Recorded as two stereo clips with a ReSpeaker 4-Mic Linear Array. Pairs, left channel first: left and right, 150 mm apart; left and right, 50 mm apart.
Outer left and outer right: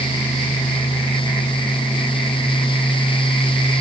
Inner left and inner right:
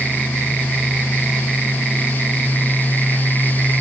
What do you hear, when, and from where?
Only background noise.